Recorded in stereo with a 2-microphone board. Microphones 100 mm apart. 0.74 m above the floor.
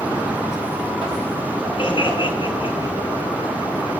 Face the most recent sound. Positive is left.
turn(degrees=55)  # may be behind; listen again after turning